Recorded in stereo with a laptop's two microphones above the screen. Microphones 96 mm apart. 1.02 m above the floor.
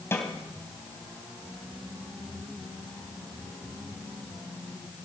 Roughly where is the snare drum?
Left.